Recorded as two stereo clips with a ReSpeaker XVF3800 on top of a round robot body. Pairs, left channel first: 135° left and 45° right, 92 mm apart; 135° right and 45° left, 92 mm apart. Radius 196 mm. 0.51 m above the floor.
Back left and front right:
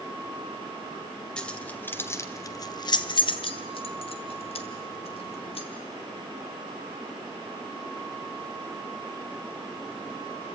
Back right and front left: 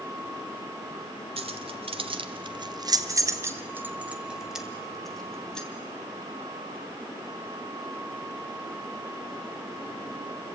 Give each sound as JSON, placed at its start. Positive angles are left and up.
{"t": 1.4, "sound": "keys jangling", "azimuth_deg": 55, "distance_m": 1.9}